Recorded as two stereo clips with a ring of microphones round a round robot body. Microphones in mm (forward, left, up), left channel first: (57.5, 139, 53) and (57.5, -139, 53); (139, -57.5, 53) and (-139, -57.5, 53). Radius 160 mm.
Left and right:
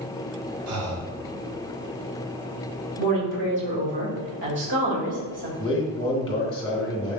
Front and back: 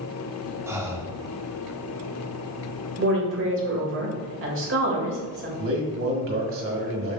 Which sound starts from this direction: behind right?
A woman speaking, at 3.0 s.